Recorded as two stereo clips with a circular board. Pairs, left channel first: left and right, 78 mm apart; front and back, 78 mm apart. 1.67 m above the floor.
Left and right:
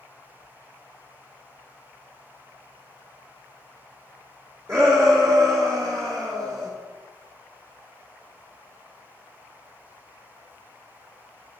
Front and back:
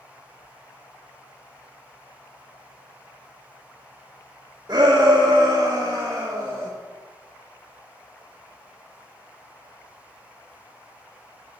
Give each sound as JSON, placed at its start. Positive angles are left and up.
{"t": 4.7, "sound": "a shout", "azimuth_deg": -145, "distance_m": 1.8}